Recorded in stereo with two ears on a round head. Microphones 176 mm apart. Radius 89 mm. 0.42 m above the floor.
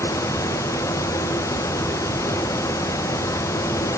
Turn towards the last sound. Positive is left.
No sound to turn to.